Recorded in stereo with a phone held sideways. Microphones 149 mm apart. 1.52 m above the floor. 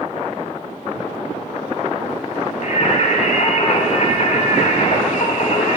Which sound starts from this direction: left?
Singing, at 2.6 s.